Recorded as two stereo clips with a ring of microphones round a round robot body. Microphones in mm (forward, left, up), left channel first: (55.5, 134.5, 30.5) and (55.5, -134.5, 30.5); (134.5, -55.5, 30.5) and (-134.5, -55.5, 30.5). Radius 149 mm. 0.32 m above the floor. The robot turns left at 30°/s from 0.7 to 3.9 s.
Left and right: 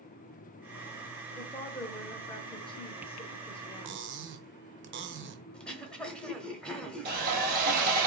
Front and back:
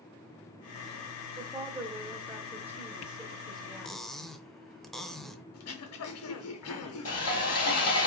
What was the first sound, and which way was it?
A woman speaking, 150° left.